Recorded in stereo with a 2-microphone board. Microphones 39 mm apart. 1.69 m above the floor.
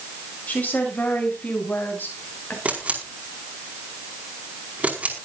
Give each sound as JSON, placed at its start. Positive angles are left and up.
{"t": 0.5, "sound": "a woman speaking", "side_deg": 40, "distance_m": 7.5}
{"t": 2.6, "sound": "a camera shutter", "side_deg": -40, "distance_m": 5.0}